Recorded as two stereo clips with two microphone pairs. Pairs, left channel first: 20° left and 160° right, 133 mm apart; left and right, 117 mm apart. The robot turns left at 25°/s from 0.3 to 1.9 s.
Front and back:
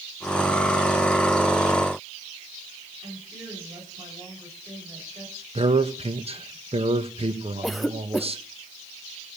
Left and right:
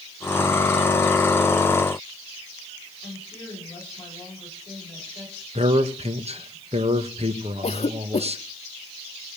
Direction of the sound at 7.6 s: 110° left.